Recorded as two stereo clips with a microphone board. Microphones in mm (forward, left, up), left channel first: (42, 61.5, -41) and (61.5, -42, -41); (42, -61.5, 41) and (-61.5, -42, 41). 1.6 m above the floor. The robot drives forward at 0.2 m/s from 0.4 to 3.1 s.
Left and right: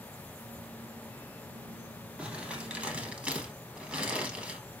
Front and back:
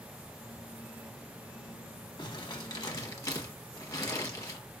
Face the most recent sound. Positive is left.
turn(degrees=-5)